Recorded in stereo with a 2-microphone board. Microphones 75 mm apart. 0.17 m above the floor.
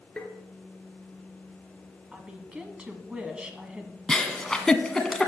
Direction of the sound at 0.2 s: 15° left (ahead or behind).